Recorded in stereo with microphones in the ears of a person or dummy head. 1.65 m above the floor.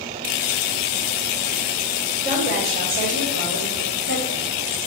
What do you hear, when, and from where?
2.2 s a woman speaking: 55° right (ahead or behind), 6 m; by 4.4 s 65° right (ahead or behind), 6.5 m